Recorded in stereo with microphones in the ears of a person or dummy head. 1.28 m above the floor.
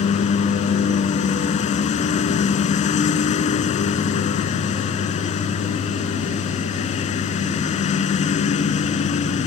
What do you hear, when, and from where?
0.0 s a lawn mower: 45° left (ahead or behind)